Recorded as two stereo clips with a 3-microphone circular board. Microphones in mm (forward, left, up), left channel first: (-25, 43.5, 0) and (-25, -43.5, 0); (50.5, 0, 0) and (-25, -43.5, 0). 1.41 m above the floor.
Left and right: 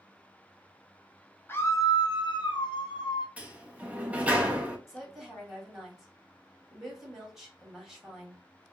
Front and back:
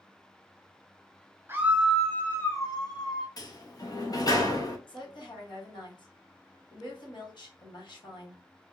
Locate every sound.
1.5 s a scream: 150° left, 0.6 m; by 3.3 s 60° left, 1.0 m
3.4 s a sliding door: 15° right, 0.6 m
4.9 s a woman speaking: 5° right, 1.2 m